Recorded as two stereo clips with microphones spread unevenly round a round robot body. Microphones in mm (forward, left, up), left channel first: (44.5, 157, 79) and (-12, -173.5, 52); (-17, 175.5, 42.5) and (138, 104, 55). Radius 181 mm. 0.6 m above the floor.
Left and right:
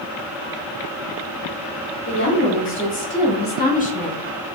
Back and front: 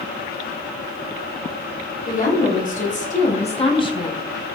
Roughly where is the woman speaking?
Behind left.